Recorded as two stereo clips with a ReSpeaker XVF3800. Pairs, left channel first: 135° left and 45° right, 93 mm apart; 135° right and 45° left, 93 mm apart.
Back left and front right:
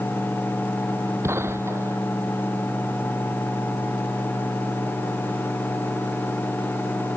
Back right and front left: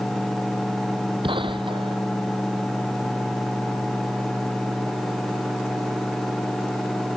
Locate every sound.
1.2 s a gunshot: 15° left